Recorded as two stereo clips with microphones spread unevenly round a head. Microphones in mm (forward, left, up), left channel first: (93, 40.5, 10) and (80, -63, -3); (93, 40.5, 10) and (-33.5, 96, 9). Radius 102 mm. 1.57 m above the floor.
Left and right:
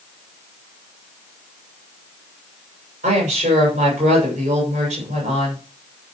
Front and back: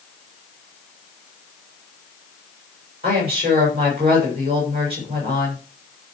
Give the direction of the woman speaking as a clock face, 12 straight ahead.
5 o'clock.